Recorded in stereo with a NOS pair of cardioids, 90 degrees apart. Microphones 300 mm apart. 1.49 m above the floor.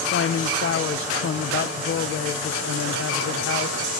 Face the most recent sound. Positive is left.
turn(degrees=45)